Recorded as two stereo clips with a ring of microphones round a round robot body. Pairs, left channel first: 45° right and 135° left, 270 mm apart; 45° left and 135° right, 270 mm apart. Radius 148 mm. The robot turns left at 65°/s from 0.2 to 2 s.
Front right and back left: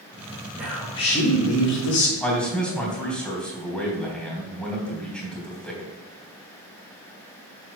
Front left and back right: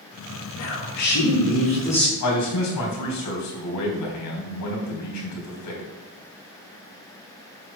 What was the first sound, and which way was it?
A man speaking, 55° left.